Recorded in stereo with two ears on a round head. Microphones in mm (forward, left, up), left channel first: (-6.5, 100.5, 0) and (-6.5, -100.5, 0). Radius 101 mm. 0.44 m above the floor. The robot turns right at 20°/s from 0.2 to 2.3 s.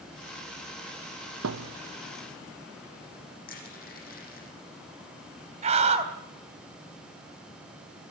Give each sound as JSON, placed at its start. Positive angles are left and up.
{"t": 1.4, "sound": "a thud", "side_deg": -75, "distance_m": 1.3}
{"t": 3.5, "sound": "crushing", "side_deg": 45, "distance_m": 7.0}
{"t": 5.6, "sound": "a scream", "side_deg": -30, "distance_m": 3.0}